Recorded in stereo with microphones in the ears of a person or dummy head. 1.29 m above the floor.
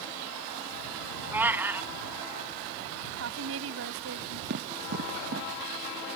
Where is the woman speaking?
80° right.